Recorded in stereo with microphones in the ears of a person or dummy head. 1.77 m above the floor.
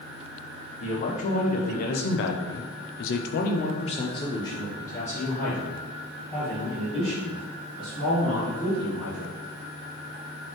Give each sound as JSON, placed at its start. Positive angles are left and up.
{"t": 0.8, "sound": "a man speaking", "side_deg": 30, "distance_m": 1.5}